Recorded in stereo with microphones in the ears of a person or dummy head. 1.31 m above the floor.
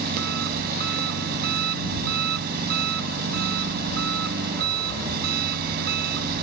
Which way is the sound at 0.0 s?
50° right (ahead or behind).